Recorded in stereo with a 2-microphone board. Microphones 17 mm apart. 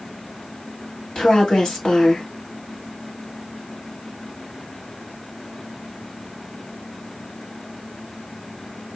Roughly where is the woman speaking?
Left.